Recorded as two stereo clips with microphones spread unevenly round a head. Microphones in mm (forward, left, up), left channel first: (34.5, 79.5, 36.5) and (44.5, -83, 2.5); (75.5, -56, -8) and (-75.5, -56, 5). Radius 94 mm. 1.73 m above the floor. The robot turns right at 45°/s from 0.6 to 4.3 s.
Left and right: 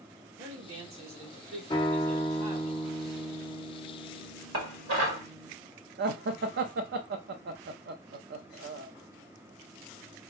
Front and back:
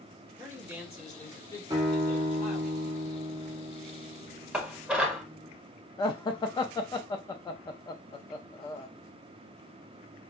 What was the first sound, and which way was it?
A man speaking, 110° right.